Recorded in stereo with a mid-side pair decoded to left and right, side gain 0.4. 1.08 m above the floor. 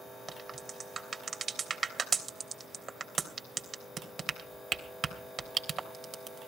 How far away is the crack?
About 3 m.